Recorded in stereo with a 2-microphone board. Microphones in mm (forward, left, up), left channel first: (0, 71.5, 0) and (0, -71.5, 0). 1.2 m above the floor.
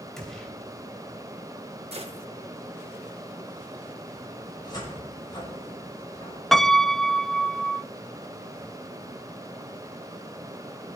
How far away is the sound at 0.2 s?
About 3 m.